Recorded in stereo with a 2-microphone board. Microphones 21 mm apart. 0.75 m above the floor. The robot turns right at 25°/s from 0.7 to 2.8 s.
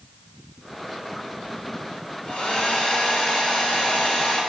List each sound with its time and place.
2.2 s a hair dryer: 65° left (ahead or behind), 1.8 m; by 4.4 s 50° left (ahead or behind), 1.8 m